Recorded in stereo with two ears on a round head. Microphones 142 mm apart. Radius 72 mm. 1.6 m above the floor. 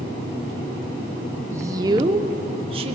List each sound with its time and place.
1.5 s a woman speaking: 15° right (ahead or behind), 0.9 m; by 3.0 s 35° right (ahead or behind), 1.9 m